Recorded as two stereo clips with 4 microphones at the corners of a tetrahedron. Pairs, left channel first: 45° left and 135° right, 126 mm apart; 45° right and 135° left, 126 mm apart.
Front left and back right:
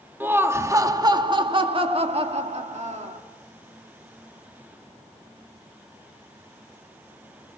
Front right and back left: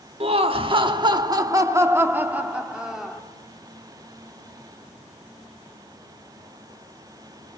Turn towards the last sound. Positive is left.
turn(degrees=-135)